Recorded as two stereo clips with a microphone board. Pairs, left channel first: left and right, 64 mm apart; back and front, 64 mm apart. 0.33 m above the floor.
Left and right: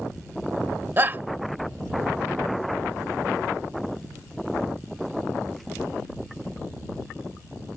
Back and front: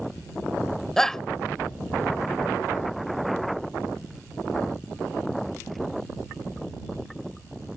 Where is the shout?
105° right.